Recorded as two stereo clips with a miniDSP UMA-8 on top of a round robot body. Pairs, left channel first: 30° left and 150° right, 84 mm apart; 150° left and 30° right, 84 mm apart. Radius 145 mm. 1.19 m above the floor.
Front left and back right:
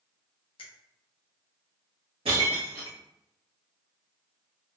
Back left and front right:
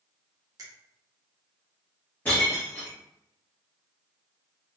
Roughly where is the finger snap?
Ahead.